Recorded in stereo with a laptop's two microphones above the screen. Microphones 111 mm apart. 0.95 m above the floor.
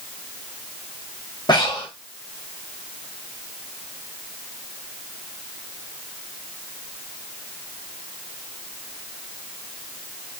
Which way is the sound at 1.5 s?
45° left (ahead or behind).